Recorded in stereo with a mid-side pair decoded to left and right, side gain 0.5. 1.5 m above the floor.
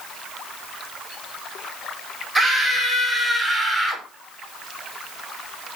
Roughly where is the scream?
Ahead.